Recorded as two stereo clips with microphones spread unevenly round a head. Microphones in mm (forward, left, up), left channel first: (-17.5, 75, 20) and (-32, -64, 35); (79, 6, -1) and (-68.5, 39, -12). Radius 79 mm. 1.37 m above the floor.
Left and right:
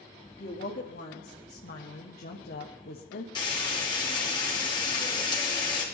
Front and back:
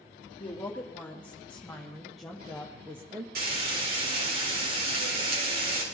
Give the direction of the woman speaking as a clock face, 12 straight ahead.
10 o'clock.